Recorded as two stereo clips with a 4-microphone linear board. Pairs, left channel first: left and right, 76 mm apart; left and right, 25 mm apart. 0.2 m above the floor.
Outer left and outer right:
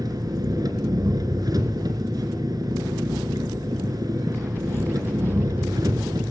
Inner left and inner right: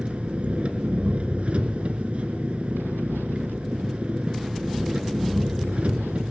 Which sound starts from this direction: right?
An engine running, at 0.0 s.